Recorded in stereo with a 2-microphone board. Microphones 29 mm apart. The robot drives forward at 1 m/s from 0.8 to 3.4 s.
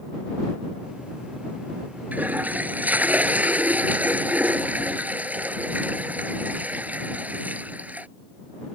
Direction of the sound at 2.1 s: 65° right (ahead or behind).